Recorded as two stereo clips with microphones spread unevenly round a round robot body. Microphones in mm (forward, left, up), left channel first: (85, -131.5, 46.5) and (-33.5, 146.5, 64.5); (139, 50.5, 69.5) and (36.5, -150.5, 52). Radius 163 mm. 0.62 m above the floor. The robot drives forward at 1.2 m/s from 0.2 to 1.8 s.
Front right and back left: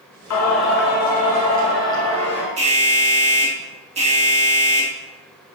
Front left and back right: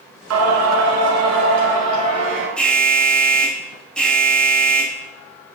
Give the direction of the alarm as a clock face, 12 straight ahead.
7 o'clock.